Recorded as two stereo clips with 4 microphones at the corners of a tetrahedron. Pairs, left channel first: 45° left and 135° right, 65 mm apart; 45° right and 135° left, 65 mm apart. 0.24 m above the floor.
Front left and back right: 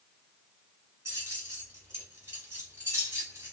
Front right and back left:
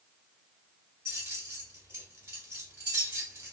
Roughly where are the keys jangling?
Behind.